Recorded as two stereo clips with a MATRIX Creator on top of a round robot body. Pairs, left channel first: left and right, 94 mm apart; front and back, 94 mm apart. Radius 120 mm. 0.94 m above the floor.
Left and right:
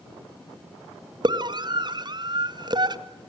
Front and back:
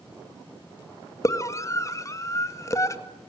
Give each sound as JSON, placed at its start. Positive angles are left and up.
{"t": 1.2, "sound": "a scream", "azimuth_deg": -55, "distance_m": 2.0}